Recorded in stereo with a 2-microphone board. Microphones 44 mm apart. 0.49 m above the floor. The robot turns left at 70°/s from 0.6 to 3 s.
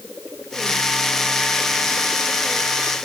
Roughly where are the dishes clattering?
I don't hear dishes clattering.